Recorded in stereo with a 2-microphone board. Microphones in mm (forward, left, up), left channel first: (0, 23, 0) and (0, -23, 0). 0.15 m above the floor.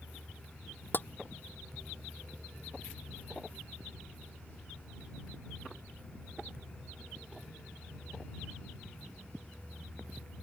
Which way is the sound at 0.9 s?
45° left (ahead or behind).